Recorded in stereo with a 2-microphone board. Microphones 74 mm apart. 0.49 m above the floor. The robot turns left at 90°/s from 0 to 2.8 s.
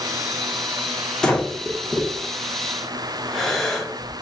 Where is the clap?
No clap in this recording.